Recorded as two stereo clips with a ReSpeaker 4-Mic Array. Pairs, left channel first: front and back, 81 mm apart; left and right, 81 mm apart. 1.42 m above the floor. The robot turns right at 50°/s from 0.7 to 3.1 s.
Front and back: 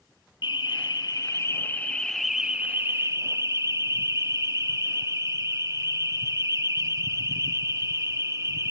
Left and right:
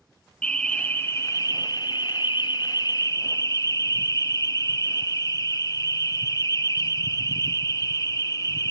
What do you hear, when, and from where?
0.4 s an alarm: 15° left, 1.3 m; by 8.7 s 135° left, 1.3 m